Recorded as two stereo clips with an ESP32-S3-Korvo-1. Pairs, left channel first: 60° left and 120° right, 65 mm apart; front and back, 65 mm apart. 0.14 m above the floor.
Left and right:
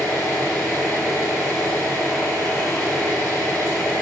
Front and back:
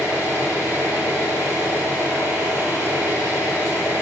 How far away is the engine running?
About 1.5 m.